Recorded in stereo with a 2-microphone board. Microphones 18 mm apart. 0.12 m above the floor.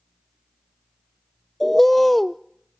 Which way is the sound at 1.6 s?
10° left (ahead or behind).